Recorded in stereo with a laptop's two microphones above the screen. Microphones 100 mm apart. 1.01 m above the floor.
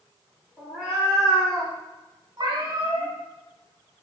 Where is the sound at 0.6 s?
5° left (ahead or behind), 1.0 m; by 1.7 s 45° right (ahead or behind), 1.0 m.